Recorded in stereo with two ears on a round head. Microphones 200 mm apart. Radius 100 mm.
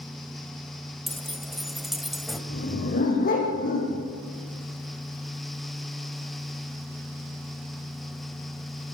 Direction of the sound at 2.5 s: 40° left (ahead or behind).